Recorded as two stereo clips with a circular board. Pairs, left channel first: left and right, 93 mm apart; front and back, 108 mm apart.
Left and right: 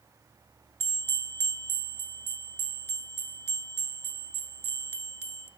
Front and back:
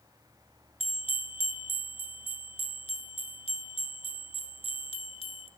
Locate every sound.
0.8 s a bell: 25° left, 0.7 m